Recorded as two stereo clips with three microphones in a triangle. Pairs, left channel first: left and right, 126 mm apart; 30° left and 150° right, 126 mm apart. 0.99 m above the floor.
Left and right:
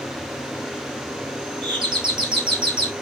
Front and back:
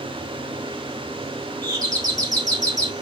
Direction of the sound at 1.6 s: 105° right.